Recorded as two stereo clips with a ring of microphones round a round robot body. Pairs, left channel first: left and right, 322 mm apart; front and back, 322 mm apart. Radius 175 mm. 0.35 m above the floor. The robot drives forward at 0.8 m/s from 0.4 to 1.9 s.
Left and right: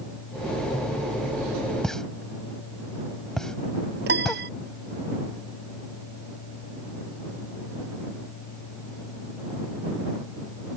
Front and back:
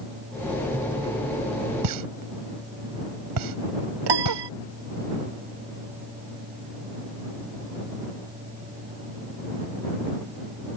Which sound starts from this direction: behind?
A pop, at 1.8 s.